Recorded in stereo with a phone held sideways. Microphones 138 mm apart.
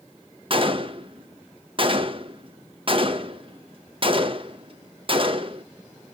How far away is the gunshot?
About 0.8 m.